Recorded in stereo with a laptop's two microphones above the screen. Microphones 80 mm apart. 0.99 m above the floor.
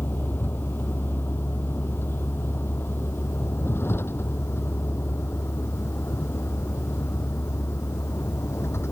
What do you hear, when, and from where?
0.0 s a vehicle: 25° left (ahead or behind); by 8.9 s 35° left (ahead or behind)